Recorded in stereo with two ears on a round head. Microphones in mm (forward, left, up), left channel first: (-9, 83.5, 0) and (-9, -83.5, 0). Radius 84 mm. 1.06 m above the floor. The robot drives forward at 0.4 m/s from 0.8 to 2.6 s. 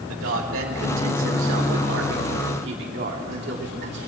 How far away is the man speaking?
About 2 m.